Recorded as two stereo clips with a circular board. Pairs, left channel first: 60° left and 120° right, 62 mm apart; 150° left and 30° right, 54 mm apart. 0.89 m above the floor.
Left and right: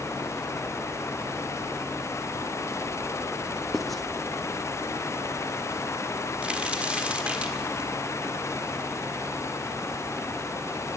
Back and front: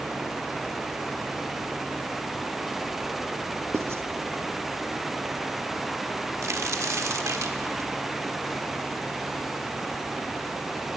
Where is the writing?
30° right, 0.6 m.